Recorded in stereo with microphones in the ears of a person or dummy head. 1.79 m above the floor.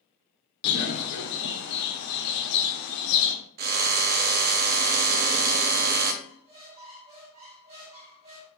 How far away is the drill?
About 0.5 m.